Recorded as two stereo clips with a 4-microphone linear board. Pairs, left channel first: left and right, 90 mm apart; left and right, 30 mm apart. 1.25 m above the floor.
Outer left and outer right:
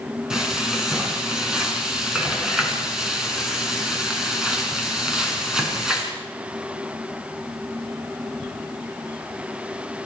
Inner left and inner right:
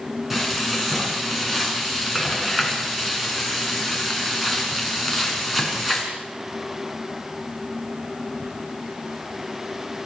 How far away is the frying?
About 5 m.